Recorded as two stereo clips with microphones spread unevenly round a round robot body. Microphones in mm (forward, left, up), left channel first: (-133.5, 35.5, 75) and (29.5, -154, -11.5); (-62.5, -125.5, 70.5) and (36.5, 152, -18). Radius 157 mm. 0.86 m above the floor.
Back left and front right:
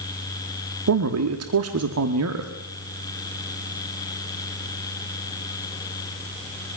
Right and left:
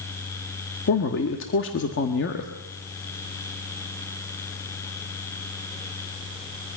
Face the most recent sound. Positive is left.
turn(degrees=-55)